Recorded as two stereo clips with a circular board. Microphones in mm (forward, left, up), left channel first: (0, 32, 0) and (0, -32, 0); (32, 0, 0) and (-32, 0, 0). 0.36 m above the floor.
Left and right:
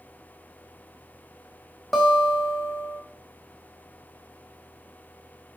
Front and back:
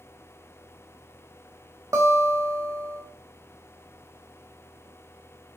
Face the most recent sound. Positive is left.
turn(degrees=175)